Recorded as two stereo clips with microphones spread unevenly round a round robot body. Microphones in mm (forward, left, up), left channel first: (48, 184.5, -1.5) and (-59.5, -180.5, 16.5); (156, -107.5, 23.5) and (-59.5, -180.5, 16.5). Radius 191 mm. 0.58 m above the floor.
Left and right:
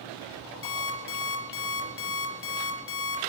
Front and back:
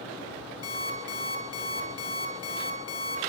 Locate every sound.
0.6 s an alarm clock: 15° left, 5 m